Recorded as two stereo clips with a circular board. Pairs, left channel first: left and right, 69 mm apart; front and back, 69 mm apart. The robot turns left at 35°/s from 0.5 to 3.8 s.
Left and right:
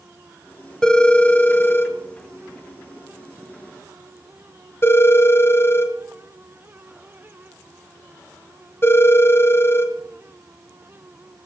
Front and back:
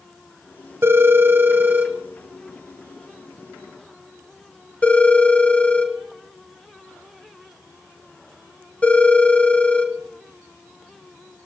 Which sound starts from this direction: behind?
A phone ringing, at 0.8 s.